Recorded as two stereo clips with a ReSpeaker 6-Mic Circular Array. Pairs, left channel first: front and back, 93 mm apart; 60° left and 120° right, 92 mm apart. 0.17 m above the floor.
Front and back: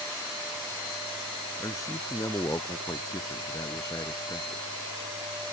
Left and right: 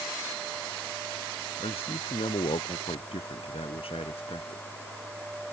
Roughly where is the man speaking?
Ahead left.